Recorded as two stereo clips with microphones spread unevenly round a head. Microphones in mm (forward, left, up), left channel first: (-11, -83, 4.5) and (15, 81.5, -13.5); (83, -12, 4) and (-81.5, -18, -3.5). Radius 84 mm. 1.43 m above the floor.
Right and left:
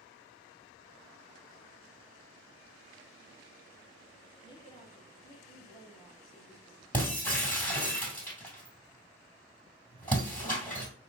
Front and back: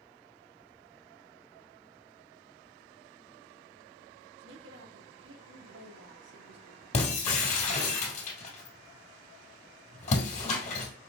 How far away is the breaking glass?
About 2 m.